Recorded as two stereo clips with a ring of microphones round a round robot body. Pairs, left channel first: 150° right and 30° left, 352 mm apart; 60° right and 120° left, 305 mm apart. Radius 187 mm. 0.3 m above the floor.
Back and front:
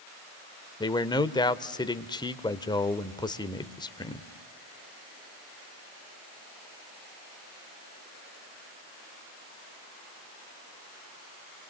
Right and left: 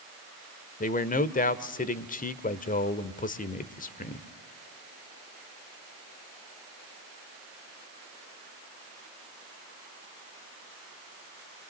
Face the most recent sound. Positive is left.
turn(degrees=-85)